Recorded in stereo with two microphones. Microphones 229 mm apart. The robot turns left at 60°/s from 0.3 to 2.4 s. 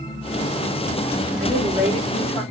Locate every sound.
1.4 s a woman speaking: 140° right, 6.5 m; by 2.4 s 160° left, 6.5 m